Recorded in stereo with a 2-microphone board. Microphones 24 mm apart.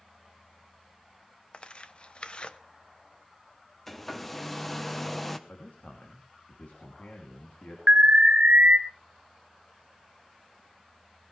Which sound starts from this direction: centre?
A hair dryer, at 3.9 s.